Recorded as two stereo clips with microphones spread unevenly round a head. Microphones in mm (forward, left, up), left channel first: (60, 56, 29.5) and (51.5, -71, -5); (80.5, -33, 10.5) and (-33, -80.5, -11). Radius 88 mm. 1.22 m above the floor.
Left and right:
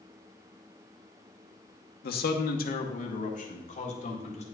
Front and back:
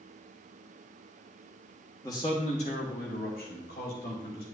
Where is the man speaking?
95° left, 0.9 m; by 4.4 s 50° left, 2 m.